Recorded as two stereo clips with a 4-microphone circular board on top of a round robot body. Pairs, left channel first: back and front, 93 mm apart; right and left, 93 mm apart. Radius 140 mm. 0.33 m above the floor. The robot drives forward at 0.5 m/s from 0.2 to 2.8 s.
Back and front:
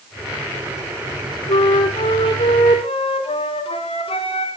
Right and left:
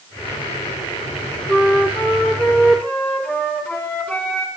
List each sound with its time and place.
1.5 s a flute: 165° right, 3 m